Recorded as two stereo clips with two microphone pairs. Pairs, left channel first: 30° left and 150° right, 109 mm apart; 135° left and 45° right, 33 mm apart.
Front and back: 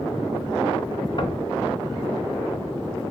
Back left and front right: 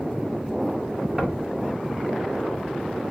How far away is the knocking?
About 1.5 m.